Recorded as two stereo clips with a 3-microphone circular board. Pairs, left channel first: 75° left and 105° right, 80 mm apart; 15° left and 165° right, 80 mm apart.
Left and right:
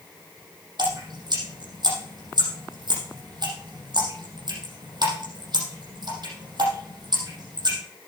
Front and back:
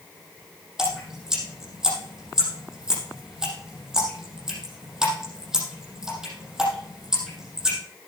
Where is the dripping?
80° right, 5.5 m.